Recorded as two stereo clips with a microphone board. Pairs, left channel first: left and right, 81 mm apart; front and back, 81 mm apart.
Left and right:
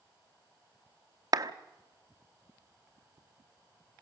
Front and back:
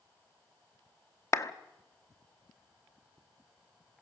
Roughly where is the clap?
Ahead right.